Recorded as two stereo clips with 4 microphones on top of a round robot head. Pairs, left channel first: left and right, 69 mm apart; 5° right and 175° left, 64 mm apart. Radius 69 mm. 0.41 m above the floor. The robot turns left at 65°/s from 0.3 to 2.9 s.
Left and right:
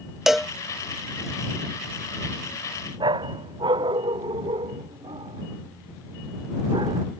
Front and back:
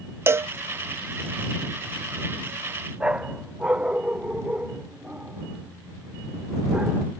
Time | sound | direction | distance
0.3 | a cowbell | 175° right | ?
3.0 | a dog barking | 110° right | ?